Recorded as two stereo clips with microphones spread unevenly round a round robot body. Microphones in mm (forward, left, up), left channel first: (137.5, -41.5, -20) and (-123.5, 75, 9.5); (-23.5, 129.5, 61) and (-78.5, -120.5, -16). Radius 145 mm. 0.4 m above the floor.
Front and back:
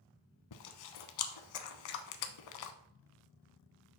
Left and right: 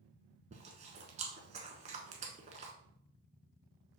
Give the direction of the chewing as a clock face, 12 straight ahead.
1 o'clock.